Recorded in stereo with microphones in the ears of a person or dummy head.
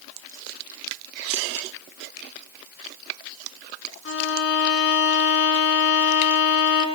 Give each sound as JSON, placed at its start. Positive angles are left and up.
{"t": 2.2, "sound": "a finger snap", "side_deg": 85, "distance_m": 7.0}
{"t": 4.0, "sound": "a violin", "side_deg": 60, "distance_m": 3.0}